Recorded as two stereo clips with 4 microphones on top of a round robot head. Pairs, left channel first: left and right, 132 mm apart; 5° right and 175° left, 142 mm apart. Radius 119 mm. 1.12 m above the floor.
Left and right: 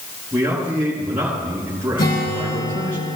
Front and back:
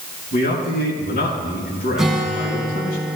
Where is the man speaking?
10° right, 5 m.